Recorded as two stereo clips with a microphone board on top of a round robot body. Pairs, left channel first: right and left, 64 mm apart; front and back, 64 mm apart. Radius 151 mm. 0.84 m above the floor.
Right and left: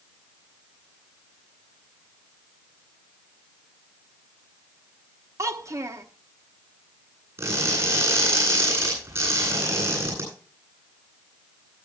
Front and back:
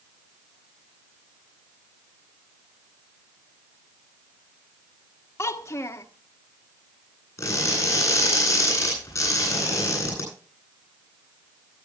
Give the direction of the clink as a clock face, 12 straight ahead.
No clink in this recording.